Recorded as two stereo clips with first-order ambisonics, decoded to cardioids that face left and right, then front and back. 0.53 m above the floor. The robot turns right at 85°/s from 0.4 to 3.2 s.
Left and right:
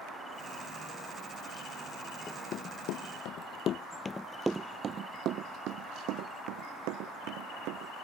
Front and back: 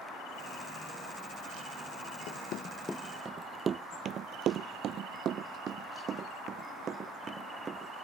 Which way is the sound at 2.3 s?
15° left.